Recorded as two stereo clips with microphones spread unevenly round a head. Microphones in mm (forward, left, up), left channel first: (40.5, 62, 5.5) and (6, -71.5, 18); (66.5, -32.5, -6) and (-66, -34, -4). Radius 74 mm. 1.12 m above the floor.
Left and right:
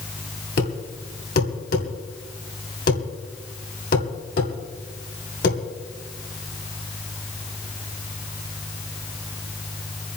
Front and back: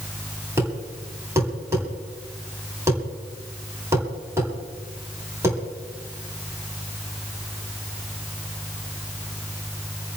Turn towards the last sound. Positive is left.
turn(degrees=110)